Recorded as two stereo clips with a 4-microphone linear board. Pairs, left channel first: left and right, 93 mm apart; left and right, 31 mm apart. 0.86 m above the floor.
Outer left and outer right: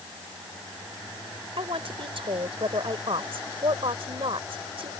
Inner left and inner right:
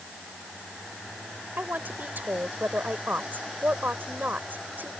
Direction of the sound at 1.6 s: 80° right.